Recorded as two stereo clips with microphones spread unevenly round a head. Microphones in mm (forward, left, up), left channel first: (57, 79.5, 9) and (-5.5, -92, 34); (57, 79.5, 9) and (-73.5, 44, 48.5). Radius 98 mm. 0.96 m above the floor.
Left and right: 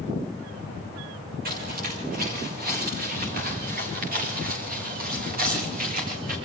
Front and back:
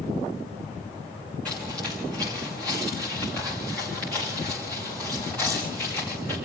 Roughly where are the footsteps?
Right.